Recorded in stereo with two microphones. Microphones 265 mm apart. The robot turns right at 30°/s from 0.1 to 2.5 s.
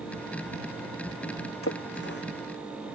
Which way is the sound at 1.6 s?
55° left (ahead or behind).